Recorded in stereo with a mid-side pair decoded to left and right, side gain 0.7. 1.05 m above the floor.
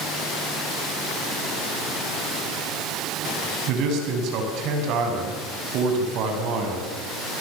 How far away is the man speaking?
About 6.5 m.